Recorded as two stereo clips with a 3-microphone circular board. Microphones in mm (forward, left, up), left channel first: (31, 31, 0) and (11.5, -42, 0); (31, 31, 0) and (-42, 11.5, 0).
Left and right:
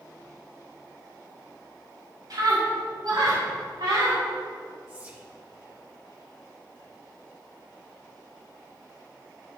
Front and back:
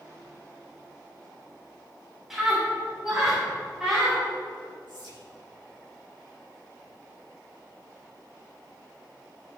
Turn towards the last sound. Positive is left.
turn(degrees=-170)